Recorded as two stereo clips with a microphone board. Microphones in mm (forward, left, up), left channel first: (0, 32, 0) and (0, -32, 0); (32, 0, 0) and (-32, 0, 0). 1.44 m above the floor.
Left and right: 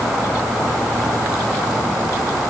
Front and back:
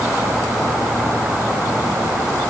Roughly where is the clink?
I don't hear a clink.